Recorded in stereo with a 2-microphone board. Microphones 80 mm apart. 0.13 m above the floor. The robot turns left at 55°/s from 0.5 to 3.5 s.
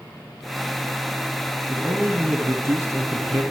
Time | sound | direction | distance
1.7 | a man speaking | 25° right | 1.6 m